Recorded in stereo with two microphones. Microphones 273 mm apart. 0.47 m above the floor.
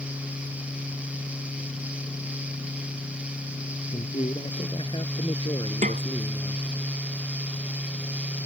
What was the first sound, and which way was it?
A man speaking, 20° left (ahead or behind).